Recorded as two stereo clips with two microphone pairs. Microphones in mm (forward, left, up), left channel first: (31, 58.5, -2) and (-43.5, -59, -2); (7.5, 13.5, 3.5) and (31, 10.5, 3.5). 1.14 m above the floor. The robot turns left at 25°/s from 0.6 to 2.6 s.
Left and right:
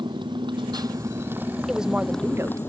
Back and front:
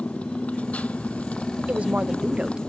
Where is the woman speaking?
35° right; by 2.6 s 55° right.